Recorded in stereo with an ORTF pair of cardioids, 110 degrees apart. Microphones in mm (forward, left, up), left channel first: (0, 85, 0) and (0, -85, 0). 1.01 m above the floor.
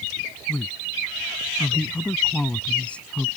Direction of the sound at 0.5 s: 5° left.